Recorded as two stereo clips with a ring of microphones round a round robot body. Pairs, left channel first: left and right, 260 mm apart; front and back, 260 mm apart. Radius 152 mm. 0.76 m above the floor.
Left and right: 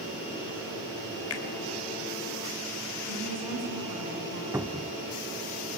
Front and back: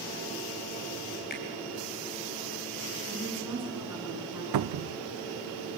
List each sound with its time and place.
1.3 s a finger snap: 60° left, 3 m
3.1 s a woman speaking: 100° right, 10 m
4.5 s a cupboard door: 175° right, 0.5 m